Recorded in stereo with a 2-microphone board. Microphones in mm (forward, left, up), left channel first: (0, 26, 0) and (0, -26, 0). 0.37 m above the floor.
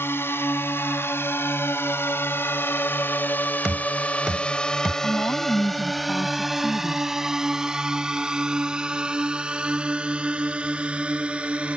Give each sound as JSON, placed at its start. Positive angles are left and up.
{"t": 0.0, "sound": "a drone", "side_deg": 55}
{"t": 3.6, "sound": "knocking", "side_deg": -15}
{"t": 5.0, "sound": "a woman speaking", "side_deg": 65}